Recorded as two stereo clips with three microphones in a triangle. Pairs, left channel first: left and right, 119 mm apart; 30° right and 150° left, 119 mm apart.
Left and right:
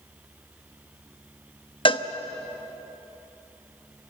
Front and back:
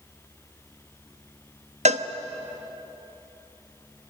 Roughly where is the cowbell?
Behind left.